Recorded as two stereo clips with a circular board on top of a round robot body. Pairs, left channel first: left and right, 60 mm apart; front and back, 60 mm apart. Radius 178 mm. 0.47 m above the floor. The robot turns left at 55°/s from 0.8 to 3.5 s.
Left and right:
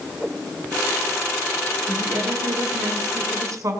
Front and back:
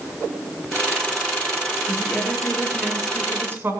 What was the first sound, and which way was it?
A woman speaking, 35° right.